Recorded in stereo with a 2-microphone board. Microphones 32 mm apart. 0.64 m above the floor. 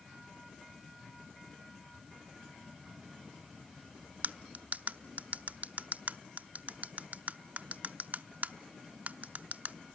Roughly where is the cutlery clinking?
Right.